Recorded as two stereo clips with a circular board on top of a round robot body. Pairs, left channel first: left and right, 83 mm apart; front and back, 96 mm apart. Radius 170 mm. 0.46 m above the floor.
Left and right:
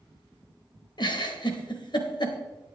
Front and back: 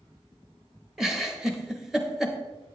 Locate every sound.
1.0 s a giggle: 95° left, 1.2 m